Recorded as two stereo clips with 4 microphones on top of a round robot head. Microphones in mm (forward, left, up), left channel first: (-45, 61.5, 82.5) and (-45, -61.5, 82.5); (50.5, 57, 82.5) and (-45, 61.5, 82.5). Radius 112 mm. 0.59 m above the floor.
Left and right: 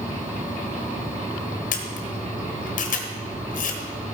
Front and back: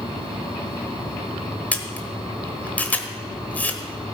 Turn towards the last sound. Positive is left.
turn(degrees=70)